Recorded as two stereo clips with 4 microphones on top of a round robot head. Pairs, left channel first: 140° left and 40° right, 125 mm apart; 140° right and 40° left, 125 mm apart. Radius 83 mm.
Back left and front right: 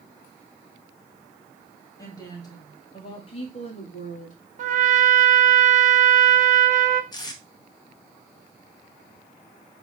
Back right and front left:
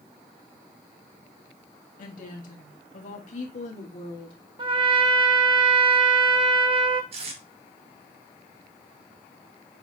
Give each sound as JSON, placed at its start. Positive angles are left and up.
{"t": 2.0, "sound": "a woman speaking", "azimuth_deg": -155, "distance_m": 2.0}
{"t": 4.6, "sound": "a trumpet", "azimuth_deg": -10, "distance_m": 1.0}
{"t": 7.1, "sound": "tape being pulled", "azimuth_deg": 80, "distance_m": 1.3}